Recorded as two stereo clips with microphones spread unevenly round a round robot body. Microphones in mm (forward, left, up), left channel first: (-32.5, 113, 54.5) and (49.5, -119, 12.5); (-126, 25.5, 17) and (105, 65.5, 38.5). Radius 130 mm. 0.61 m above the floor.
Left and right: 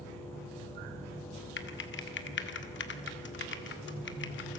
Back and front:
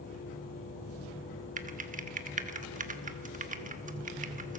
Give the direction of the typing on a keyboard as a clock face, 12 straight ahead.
10 o'clock.